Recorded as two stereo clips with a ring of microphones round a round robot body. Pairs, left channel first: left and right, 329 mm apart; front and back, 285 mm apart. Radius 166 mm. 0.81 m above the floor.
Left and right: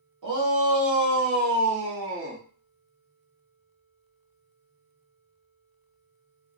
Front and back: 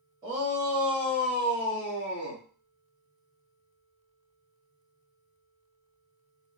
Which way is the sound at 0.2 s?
105° right.